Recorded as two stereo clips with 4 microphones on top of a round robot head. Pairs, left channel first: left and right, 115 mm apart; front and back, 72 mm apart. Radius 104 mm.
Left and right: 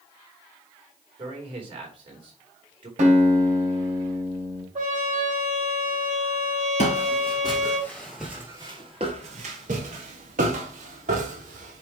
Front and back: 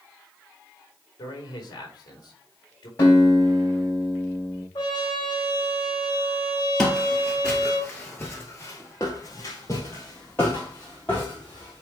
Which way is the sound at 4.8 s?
60° right.